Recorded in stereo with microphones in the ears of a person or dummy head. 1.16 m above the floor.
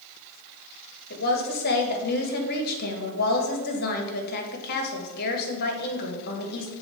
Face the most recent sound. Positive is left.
turn(degrees=55)  # may be behind; listen again after turning